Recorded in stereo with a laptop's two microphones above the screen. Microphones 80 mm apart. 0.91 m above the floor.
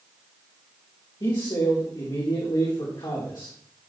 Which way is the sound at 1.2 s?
65° left (ahead or behind).